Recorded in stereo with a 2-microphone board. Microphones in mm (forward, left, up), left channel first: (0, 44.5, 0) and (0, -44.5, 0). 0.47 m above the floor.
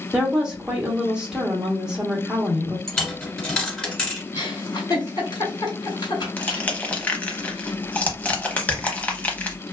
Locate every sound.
0.1 s a woman speaking: 10° right (ahead or behind), 0.9 m
2.9 s a dropped coin: 5° left (ahead or behind), 1.3 m
4.3 s a giggle: 50° left (ahead or behind), 1.5 m
6.4 s crushing: 15° left (ahead or behind), 0.6 m